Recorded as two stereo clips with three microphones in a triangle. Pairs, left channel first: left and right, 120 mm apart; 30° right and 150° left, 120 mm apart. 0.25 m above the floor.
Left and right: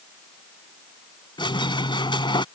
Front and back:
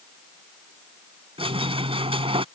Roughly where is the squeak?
Behind left.